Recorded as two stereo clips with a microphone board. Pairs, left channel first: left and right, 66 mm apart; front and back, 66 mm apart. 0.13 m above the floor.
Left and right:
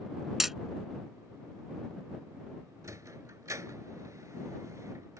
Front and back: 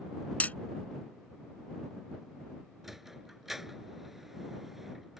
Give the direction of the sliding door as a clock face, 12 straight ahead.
3 o'clock.